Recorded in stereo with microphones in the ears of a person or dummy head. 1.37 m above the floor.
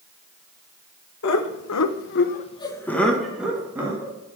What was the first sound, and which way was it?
Laughter, 65° left (ahead or behind).